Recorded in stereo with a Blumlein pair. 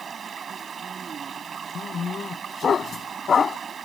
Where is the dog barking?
20° left.